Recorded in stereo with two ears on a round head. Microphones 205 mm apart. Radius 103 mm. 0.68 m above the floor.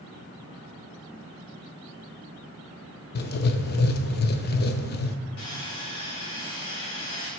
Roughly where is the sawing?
Left.